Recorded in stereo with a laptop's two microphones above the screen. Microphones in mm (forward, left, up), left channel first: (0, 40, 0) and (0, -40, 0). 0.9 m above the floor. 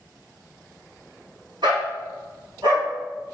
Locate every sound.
1.6 s a dog barking: 85° right, 3.5 m; by 3.3 s 80° right, 5.5 m